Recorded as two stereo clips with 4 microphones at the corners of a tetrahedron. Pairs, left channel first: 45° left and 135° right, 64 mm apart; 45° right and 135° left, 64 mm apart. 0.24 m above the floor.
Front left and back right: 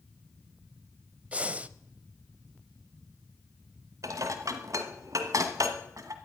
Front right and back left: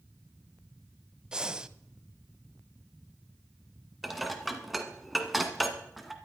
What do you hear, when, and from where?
1.3 s breathing: 165° right, 0.5 m
4.0 s dishes clattering: 135° right, 1.5 m